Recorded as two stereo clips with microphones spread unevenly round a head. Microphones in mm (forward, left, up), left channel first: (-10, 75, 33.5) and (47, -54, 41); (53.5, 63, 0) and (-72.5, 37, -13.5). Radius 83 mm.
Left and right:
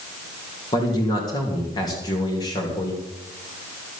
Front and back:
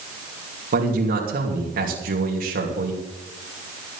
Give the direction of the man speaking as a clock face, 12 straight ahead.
6 o'clock.